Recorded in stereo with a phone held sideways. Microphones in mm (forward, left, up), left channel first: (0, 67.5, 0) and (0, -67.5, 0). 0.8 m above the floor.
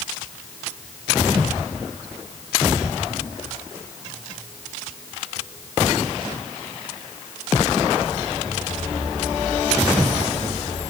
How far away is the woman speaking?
No woman speaking in this recording.